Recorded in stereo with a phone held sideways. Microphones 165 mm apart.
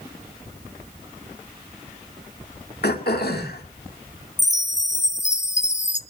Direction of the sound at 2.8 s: 80° left.